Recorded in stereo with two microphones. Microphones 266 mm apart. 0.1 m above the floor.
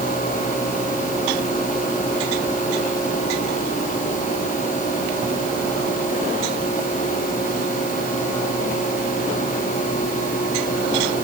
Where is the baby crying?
I don't hear a baby crying.